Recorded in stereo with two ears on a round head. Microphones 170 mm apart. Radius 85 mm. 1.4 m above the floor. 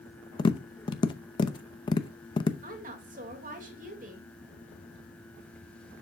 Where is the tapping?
25° left (ahead or behind), 0.7 m.